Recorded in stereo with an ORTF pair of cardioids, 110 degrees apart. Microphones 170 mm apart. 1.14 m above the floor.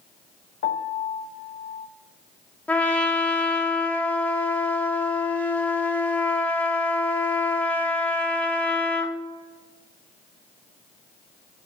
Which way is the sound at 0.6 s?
65° left.